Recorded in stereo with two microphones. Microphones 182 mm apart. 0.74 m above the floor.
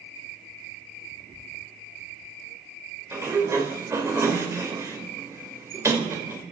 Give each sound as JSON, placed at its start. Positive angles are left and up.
{"t": 3.1, "sound": "a sliding door", "side_deg": -15, "distance_m": 3.0}